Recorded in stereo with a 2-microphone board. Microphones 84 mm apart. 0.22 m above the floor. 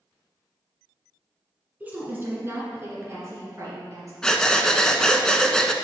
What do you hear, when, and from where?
1.8 s a woman speaking: 20° right (ahead or behind), 1.7 m; by 4.1 s 40° right (ahead or behind), 3 m
4.2 s breathing: 5° left (ahead or behind), 0.6 m